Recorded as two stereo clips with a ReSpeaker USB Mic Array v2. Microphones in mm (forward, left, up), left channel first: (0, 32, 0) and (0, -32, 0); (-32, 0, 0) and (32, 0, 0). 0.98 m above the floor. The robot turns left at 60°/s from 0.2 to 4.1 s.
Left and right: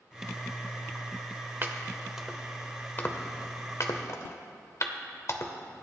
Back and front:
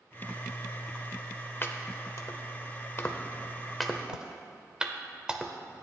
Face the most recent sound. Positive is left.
turn(degrees=75)